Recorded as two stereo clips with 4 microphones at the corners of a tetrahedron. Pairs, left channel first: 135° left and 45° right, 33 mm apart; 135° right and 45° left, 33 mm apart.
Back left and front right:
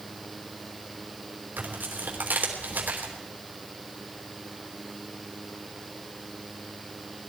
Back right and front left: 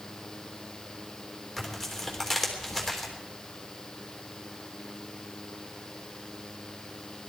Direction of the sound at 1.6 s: 45° right.